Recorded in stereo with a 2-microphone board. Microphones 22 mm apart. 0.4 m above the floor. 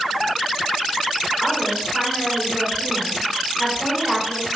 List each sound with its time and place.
1.4 s a woman speaking: 15° right (ahead or behind), 4 m